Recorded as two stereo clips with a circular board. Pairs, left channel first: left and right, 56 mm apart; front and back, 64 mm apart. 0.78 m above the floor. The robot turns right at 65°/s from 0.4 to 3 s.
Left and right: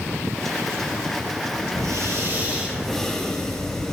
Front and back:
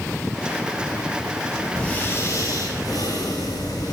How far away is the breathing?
About 8 m.